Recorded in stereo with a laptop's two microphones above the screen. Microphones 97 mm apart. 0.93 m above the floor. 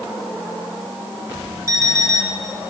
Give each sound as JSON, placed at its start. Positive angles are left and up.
{"t": 1.7, "sound": "an alarm clock", "side_deg": -30, "distance_m": 2.0}